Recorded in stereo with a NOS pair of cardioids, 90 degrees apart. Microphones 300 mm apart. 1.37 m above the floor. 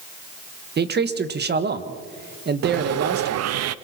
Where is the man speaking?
35° right, 1.7 m.